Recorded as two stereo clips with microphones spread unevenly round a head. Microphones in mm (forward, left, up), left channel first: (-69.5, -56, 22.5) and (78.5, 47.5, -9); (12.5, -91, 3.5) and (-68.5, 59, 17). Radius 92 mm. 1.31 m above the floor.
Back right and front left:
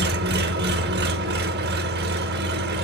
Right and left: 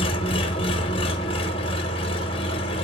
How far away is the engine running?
About 1.2 m.